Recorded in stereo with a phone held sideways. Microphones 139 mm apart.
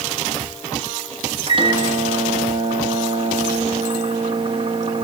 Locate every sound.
1.5 s a microwave: 40° right (ahead or behind), 1.4 m